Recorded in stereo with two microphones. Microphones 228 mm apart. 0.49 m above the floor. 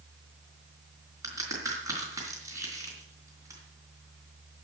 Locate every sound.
1.2 s a crack: 15° right (ahead or behind), 4.5 m